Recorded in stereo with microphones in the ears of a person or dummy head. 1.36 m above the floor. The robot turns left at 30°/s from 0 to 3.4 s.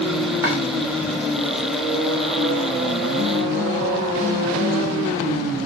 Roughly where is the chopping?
Centre.